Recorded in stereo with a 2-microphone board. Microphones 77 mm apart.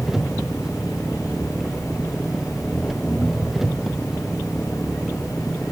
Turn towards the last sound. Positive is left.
turn(degrees=0)  # may be behind; listen again after turning